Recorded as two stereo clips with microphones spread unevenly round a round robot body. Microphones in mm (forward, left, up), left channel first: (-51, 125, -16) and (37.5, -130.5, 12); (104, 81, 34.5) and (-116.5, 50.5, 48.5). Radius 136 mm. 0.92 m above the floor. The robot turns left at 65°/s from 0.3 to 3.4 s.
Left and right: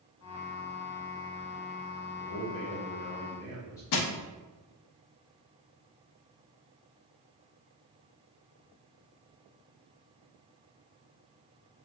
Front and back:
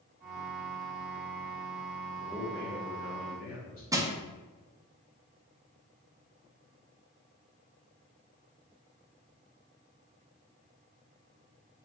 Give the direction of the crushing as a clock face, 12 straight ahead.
8 o'clock.